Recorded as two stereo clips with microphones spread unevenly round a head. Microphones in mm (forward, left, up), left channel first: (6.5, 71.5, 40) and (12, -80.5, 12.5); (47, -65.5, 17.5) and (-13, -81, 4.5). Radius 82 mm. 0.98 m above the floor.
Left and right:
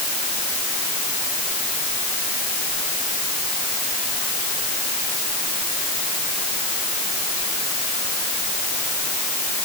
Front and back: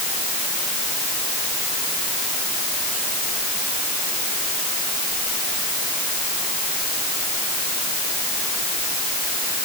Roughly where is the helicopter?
No helicopter in this recording.